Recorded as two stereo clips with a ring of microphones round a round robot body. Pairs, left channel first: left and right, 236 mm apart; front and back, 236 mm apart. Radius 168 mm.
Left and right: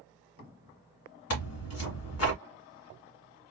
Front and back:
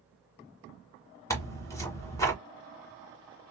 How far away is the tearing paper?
About 1.8 m.